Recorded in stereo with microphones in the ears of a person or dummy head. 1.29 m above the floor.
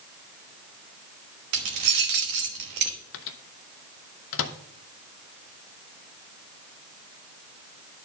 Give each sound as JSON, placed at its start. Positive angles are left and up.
{"t": 1.5, "sound": "keys jangling", "side_deg": -60, "distance_m": 1.1}
{"t": 3.1, "sound": "a microwave", "side_deg": 70, "distance_m": 0.7}